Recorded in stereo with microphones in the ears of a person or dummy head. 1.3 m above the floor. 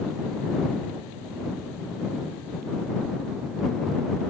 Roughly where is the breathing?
I don't hear breathing.